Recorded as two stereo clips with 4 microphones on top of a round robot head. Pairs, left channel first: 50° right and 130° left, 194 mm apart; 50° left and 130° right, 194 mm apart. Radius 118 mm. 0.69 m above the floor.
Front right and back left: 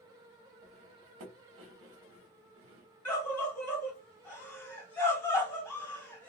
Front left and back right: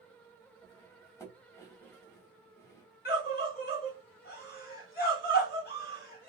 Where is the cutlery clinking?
125° left, 0.9 m.